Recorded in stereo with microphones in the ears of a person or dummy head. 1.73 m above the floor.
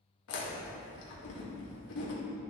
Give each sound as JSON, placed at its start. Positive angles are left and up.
{"t": 0.3, "sound": "chewing", "side_deg": 75, "distance_m": 2.0}